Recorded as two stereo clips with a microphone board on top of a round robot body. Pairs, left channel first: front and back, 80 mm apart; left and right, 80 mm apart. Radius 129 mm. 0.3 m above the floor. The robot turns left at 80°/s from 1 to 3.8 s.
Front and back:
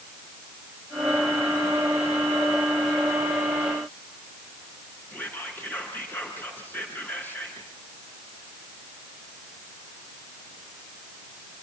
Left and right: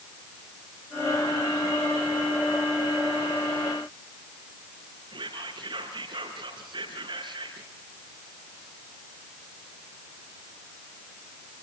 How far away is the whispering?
About 5 m.